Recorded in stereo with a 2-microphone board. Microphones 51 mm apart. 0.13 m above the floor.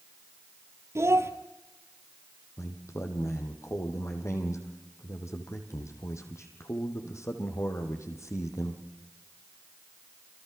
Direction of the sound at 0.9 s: 65° right (ahead or behind).